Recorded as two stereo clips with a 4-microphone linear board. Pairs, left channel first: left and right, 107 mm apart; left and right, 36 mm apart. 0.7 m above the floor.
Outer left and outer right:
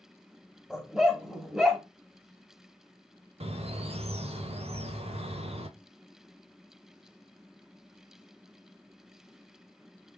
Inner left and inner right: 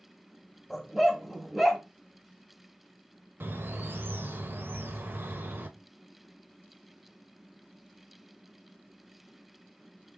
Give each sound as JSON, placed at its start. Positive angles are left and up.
{"t": 0.7, "sound": "a dog barking", "side_deg": -5, "distance_m": 0.9}
{"t": 3.4, "sound": "a bird", "side_deg": -70, "distance_m": 0.7}